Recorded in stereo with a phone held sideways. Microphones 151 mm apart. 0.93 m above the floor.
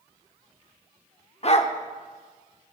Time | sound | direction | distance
1.4 | a dog barking | 45° left (ahead or behind) | 0.7 m